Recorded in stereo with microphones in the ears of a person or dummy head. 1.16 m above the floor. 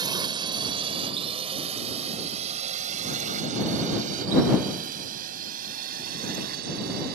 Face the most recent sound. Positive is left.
turn(degrees=-50)  # may be behind; listen again after turning